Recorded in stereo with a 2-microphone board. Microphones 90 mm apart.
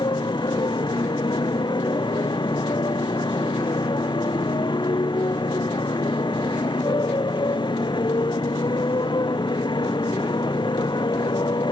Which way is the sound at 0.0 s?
55° left (ahead or behind).